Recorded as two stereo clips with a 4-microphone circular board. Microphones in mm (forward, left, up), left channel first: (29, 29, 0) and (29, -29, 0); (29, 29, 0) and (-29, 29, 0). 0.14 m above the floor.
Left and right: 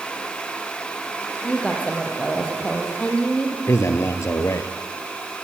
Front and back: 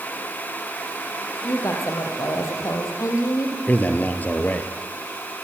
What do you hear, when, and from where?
1.4 s a woman speaking: 20° left, 5 m
3.7 s a man speaking: 60° left, 2.5 m